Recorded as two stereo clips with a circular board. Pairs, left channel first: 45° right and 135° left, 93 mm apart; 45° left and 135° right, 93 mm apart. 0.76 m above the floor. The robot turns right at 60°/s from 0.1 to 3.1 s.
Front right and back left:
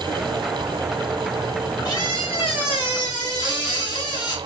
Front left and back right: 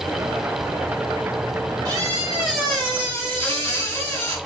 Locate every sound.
1.9 s a squeak: 90° right, 1.4 m; by 4.4 s 15° right, 1.4 m